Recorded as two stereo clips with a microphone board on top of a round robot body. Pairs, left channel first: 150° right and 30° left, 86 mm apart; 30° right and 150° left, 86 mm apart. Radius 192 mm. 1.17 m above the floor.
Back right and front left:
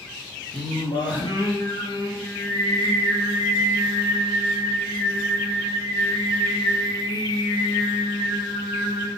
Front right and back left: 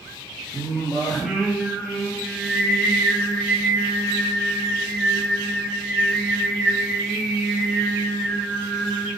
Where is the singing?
120° right, 3.5 m.